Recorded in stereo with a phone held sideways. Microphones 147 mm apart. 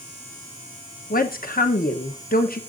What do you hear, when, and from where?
1.1 s a woman speaking: 80° left, 0.9 m